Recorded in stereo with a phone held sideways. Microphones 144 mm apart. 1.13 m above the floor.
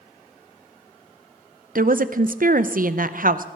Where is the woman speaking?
70° right (ahead or behind), 0.6 m.